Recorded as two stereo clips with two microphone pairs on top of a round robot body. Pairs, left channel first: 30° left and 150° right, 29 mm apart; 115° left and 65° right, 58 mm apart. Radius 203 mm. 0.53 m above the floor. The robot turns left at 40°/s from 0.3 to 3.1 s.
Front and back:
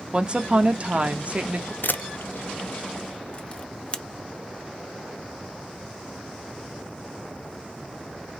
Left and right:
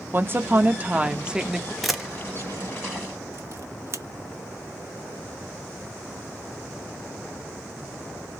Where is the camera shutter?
30° left, 0.9 m; by 4.0 s 20° right, 0.9 m.